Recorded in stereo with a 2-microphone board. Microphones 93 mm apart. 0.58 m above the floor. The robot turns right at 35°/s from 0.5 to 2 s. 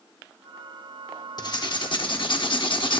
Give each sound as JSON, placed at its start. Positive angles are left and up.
{"t": 1.4, "sound": "writing", "side_deg": 45, "distance_m": 0.8}